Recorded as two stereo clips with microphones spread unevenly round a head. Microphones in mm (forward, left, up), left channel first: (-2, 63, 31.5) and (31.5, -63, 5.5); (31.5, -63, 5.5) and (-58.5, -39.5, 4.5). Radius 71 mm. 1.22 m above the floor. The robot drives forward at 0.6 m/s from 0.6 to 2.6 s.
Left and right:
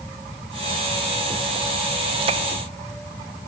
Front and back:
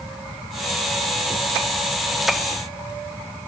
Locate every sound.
Only background noise.